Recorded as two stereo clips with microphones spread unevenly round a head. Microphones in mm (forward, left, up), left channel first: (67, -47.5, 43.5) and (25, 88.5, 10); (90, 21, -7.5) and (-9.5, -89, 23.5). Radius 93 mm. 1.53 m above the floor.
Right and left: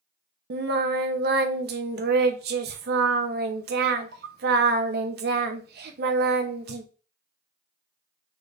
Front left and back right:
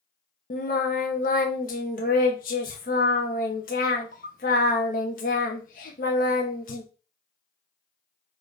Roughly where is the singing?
Left.